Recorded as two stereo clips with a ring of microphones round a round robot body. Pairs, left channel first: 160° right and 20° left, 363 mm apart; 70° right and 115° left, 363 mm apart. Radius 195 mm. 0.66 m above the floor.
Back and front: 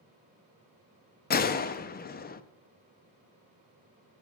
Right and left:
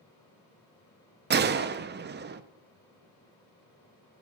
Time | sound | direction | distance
1.3 | a gunshot | 155° left | 0.6 m